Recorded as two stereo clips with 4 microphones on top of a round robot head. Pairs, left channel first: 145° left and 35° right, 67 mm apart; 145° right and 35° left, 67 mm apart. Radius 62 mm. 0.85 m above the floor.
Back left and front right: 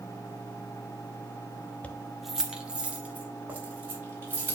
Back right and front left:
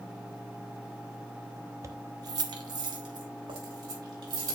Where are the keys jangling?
80° left, 1.0 m; by 4.5 s 30° left, 4.5 m.